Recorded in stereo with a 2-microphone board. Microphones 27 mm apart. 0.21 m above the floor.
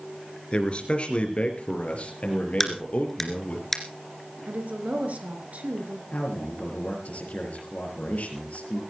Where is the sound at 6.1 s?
65° left (ahead or behind), 5.5 m.